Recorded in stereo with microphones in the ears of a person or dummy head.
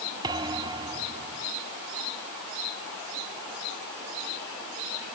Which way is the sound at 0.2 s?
20° right (ahead or behind).